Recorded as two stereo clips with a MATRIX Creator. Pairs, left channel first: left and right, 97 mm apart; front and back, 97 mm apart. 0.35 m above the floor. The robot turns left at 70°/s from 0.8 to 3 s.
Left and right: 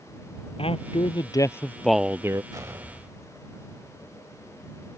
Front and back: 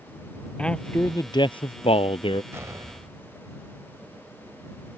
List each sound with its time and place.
0.6 s a man speaking: 80° left; by 2.4 s 35° right
2.5 s an explosion: 125° right; by 3.6 s 160° right